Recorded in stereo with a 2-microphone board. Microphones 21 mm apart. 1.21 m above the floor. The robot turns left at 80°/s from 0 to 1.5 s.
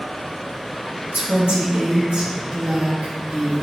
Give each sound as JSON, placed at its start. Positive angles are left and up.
{"t": 1.1, "sound": "a woman speaking", "side_deg": -80, "distance_m": 1.9}